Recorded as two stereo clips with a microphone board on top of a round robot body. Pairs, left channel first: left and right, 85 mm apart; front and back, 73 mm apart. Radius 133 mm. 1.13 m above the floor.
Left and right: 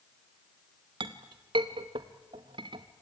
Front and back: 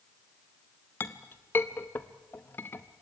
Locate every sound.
1.0 s a clink: 60° right, 0.6 m